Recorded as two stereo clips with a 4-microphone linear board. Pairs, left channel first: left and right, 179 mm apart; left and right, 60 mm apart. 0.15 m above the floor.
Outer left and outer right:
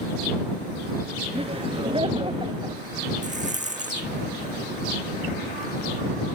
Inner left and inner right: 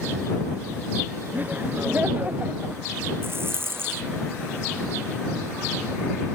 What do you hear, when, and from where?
1.3 s laughter: 30° right (ahead or behind); by 2.8 s 25° right (ahead or behind)
3.2 s a rattle: 45° right (ahead or behind)